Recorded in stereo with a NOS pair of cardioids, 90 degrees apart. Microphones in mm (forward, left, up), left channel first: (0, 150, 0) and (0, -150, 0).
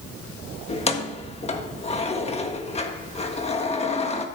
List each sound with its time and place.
0.7 s keys jangling: 20° left, 1.5 m